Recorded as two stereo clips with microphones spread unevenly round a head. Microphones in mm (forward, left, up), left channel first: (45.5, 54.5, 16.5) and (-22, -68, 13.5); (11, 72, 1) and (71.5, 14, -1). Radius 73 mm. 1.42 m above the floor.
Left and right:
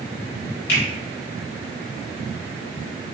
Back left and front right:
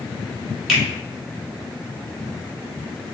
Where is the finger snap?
45° left, 1.9 m.